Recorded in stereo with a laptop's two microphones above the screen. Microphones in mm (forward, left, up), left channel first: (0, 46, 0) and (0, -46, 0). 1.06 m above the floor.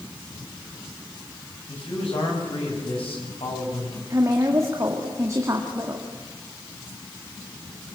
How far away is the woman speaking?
About 2 m.